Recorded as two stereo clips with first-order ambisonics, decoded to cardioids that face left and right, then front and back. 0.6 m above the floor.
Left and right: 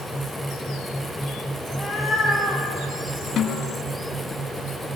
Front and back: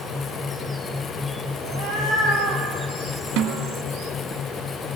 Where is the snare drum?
155° left, 1.6 m.